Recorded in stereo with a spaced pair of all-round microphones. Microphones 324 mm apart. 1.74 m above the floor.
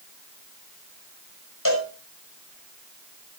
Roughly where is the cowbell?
Left.